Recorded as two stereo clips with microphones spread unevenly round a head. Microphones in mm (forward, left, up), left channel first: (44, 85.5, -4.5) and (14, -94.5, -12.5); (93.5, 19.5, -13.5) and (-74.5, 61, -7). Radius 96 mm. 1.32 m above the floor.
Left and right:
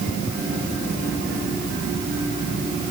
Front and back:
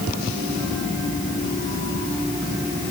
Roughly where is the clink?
I don't hear a clink.